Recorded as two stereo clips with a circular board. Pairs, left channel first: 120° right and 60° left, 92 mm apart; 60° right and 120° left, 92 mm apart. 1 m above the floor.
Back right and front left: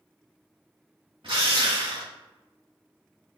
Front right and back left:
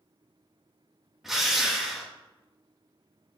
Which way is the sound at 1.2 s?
35° left.